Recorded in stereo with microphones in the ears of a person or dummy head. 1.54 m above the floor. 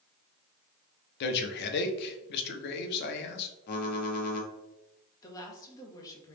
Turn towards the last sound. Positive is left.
turn(degrees=20)  # may be behind; listen again after turning